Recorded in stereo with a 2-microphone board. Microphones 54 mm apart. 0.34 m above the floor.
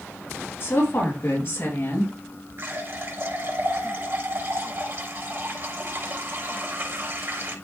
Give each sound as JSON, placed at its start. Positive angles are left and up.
{"t": 0.6, "sound": "a woman speaking", "side_deg": 45, "distance_m": 6.5}
{"t": 2.6, "sound": "a running tap", "side_deg": -50, "distance_m": 4.0}